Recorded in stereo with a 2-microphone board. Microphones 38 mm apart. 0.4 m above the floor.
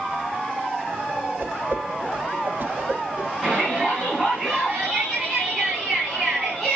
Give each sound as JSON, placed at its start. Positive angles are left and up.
{"t": 1.4, "sound": "a whoosh", "side_deg": -65, "distance_m": 1.1}
{"t": 3.4, "sound": "a shout", "side_deg": 0, "distance_m": 4.0}